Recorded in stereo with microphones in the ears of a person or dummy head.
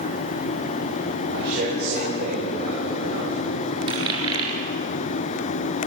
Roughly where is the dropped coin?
Right.